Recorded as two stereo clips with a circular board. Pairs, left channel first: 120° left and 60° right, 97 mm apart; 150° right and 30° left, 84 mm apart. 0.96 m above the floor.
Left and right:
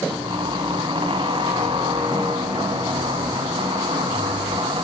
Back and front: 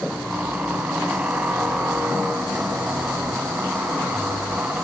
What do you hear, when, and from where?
0.1 s a squeak: 45° right, 1.6 m